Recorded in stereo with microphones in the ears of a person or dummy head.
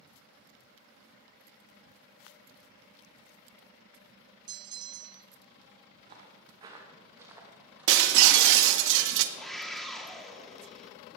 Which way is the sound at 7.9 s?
65° right (ahead or behind).